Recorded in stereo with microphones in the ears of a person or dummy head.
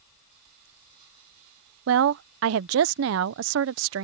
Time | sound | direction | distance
1.9 | a woman speaking | 80° right | ?